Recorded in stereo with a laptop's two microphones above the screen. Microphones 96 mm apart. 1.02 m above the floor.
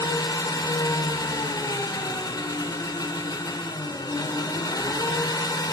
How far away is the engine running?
About 1.0 m.